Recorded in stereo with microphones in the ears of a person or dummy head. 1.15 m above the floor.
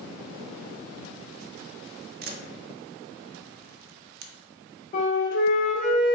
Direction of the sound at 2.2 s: 45° right (ahead or behind).